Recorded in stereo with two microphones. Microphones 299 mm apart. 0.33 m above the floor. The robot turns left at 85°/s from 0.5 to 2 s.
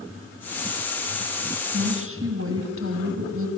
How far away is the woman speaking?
About 3 m.